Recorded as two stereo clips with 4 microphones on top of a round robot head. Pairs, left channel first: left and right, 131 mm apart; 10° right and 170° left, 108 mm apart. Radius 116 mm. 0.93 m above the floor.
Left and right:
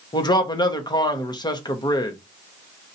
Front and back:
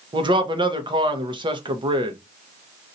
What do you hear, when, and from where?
0.1 s a man speaking: 140° left, 1.1 m